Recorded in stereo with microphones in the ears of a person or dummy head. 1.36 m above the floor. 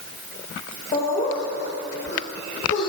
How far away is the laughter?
About 1.7 m.